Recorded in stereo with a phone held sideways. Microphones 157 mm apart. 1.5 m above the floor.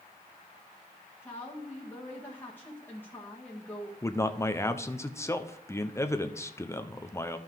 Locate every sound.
1.2 s a woman speaking: 10° left (ahead or behind), 1.8 m
4.0 s a man speaking: 15° left (ahead or behind), 0.7 m